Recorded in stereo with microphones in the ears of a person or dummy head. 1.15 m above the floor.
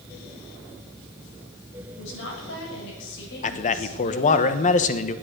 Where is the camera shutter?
I don't hear a camera shutter.